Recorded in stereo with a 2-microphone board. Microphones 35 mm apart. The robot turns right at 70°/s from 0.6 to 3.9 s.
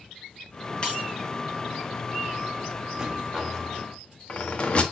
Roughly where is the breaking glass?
Left.